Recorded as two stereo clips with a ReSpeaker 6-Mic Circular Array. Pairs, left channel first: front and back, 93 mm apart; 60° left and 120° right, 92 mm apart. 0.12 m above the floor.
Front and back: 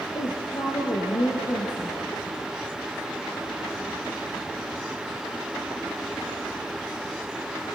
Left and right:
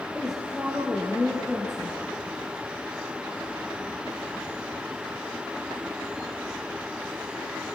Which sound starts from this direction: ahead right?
A woman speaking, at 0.1 s.